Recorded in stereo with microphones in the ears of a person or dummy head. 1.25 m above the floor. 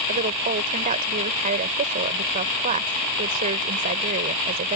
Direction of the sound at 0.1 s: 40° right (ahead or behind).